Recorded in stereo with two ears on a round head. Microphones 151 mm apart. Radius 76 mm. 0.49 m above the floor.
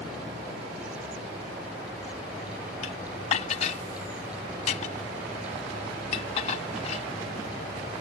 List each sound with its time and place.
2.8 s dishes clattering: 40° left (ahead or behind)